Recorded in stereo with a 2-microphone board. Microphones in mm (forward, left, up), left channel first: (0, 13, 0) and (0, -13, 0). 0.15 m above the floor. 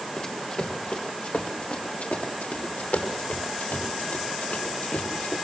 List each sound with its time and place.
0.2 s running footsteps: 35° left (ahead or behind), 4 m; by 5.3 s 70° left (ahead or behind), 8 m